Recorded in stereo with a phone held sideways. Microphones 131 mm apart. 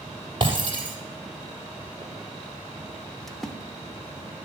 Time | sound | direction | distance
0.4 | breaking glass | 40° right (ahead or behind) | 3.5 m
3.3 | a splash | centre (ahead or behind) | 1.0 m